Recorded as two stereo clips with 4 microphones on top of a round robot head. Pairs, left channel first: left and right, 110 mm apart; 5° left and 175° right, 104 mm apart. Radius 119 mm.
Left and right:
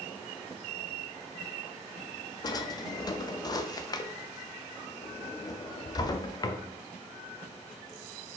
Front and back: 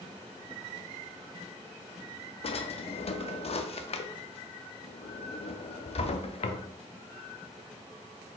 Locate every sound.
2.4 s a drawer: 35° left, 0.5 m